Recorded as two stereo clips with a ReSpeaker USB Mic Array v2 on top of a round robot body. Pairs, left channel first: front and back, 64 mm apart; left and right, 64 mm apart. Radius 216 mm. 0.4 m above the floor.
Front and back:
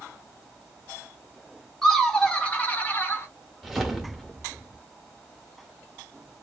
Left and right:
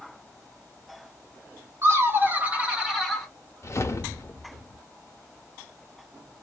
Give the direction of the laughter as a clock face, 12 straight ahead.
3 o'clock.